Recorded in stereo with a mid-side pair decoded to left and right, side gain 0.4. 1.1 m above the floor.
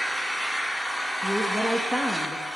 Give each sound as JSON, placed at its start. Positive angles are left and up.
{"t": 0.0, "sound": "an engine running", "azimuth_deg": -5, "distance_m": 1.5}
{"t": 1.2, "sound": "a woman speaking", "azimuth_deg": -5, "distance_m": 1.6}